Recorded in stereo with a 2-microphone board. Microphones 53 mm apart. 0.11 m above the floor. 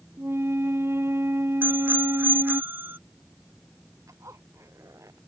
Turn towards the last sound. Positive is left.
turn(degrees=-75)  # may be behind; listen again after turning